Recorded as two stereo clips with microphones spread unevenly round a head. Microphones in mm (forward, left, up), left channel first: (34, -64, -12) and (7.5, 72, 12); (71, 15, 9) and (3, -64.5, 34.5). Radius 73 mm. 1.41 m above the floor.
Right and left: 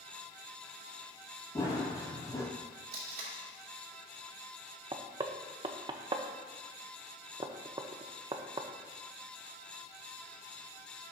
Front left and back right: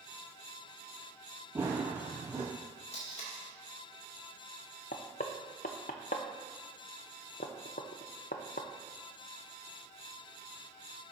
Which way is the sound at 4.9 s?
60° left.